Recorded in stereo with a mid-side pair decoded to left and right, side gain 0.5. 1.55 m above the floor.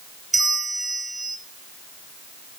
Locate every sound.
0.3 s a bell: 20° right, 1.4 m